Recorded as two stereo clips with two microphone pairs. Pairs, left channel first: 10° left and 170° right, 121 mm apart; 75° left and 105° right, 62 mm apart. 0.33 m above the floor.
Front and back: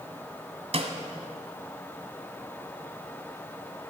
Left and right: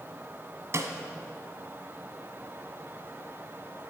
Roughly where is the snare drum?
Behind right.